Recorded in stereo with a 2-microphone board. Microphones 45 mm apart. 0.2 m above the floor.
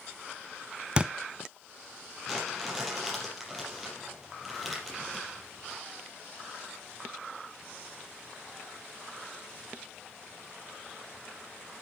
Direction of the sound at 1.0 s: 20° right (ahead or behind).